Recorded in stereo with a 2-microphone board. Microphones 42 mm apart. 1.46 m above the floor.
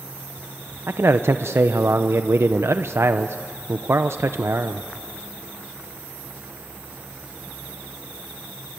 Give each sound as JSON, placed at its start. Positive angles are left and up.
{"t": 0.9, "sound": "a man speaking", "side_deg": -80, "distance_m": 0.7}